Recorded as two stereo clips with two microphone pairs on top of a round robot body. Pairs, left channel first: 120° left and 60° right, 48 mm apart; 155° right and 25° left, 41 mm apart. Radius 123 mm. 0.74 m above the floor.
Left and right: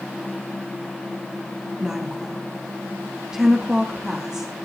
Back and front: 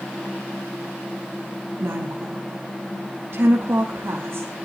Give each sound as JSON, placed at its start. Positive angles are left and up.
{"t": 1.8, "sound": "a woman speaking", "azimuth_deg": 10, "distance_m": 1.5}